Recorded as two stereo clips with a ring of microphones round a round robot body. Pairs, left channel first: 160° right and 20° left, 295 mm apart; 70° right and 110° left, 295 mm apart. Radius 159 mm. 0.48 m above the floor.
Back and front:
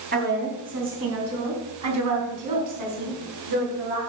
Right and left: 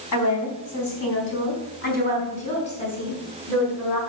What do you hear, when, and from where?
0.1 s a woman speaking: 35° right, 4.5 m; by 4.0 s 15° left, 6 m